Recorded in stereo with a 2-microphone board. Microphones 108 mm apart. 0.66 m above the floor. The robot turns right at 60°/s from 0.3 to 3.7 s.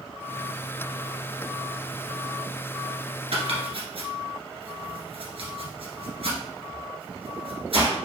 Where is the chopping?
75° right (ahead or behind), 1.7 m; by 8.0 s 65° right (ahead or behind), 1.7 m.